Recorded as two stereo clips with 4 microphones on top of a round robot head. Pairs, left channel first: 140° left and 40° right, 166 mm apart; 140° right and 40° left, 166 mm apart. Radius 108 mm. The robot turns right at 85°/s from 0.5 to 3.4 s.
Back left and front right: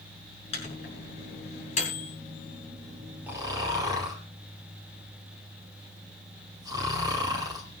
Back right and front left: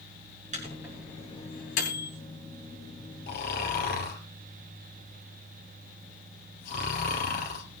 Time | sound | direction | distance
0.5 | a microwave | 85° left | 6 m
3.3 | snoring | 120° right | 4 m